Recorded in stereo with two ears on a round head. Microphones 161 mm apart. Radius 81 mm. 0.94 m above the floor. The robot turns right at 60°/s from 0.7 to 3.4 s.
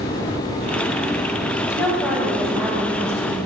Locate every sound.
1.7 s a woman speaking: 155° left, 1.1 m; by 3.4 s 105° right, 1.1 m